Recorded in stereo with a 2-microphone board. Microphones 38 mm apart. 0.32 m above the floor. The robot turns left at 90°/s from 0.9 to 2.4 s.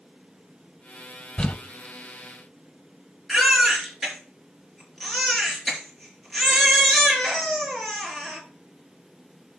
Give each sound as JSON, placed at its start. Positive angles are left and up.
{"t": 1.4, "sound": "crumpling", "side_deg": 30, "distance_m": 1.2}
{"t": 3.3, "sound": "a baby crying", "side_deg": 0, "distance_m": 4.0}